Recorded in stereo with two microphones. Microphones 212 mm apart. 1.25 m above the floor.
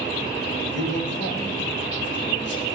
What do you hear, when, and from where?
0.7 s a man speaking: 60° left (ahead or behind), 2.0 m